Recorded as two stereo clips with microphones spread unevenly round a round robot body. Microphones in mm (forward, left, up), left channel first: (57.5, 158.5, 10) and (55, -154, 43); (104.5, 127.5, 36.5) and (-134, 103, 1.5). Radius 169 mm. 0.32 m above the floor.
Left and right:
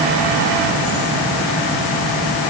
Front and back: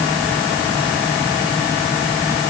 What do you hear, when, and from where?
Only background noise.